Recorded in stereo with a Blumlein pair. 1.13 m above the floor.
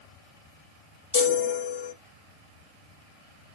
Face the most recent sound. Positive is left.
turn(degrees=65)